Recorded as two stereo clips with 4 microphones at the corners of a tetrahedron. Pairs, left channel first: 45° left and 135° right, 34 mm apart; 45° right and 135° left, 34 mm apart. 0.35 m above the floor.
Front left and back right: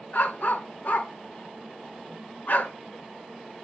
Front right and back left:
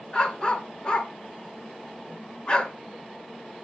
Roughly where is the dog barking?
Ahead.